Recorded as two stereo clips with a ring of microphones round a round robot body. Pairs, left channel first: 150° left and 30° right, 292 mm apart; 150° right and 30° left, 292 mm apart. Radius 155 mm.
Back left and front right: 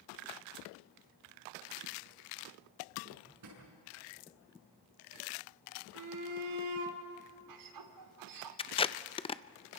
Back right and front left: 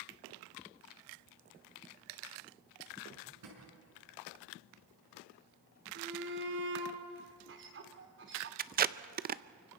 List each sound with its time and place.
3.1 s a drawer: straight ahead, 6.5 m
6.0 s a shout: 20° right, 3 m
8.6 s tape being pulled: 80° left, 0.6 m